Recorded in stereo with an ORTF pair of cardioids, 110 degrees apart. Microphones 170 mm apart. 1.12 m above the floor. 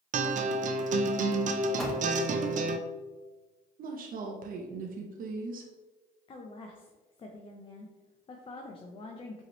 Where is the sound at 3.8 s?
50° right, 0.8 m.